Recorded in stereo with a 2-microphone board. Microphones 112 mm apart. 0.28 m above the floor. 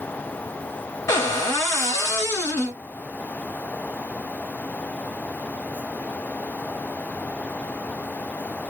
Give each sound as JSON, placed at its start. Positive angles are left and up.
{"t": 1.1, "sound": "a cupboard door", "side_deg": 25, "distance_m": 1.0}